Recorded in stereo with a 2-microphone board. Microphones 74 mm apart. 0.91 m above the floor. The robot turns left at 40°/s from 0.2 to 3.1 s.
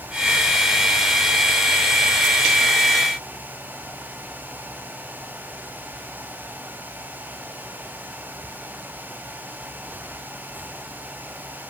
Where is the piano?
I don't hear a piano.